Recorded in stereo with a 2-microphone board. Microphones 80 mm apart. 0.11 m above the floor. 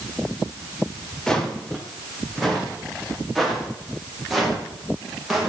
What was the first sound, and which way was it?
Footsteps, 5° left (ahead or behind).